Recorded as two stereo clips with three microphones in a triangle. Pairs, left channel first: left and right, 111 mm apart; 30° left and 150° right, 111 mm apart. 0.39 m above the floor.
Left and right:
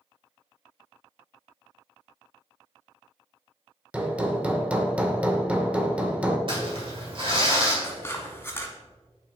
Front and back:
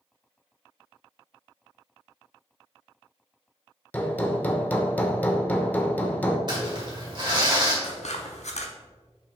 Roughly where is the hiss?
No hiss in this recording.